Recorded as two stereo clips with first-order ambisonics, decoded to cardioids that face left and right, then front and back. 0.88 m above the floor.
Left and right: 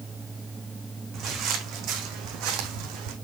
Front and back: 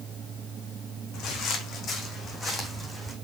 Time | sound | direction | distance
1.1 | footsteps | 40° right | 3 m